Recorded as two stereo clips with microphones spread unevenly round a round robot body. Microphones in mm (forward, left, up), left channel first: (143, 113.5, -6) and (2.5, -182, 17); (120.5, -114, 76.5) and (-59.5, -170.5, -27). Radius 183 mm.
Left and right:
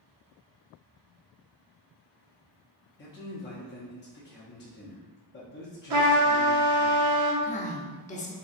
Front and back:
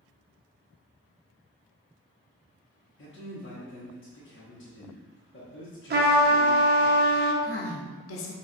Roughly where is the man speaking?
Ahead left.